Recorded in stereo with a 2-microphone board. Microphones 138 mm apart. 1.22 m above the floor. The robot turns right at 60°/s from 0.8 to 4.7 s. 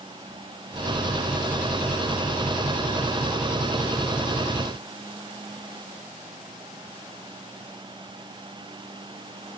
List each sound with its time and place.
Only background noise.